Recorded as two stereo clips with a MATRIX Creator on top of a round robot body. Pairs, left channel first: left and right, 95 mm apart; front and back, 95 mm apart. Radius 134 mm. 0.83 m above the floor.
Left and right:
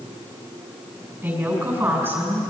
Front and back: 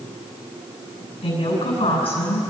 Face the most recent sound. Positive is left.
turn(degrees=-25)